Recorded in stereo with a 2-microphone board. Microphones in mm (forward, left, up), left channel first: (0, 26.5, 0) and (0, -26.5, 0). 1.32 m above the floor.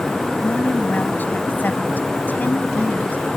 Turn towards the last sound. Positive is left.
turn(degrees=35)  # may be behind; listen again after turning